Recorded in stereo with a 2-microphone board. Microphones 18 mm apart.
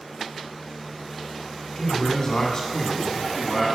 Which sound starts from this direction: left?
A man speaking, at 1.8 s.